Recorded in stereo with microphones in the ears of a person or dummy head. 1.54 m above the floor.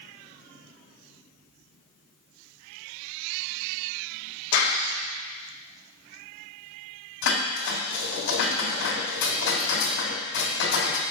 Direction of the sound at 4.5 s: 70° left (ahead or behind).